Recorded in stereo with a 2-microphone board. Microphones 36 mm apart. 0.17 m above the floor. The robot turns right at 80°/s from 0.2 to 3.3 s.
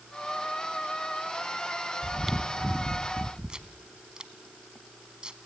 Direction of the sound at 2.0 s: 5° left (ahead or behind).